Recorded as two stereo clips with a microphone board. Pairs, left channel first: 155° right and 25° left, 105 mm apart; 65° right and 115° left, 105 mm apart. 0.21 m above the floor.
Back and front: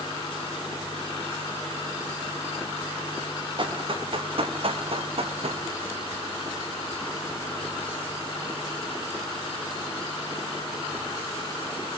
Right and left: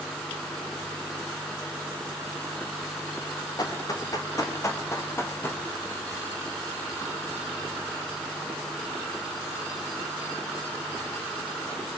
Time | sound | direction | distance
3.6 | running footsteps | 15° right | 5 m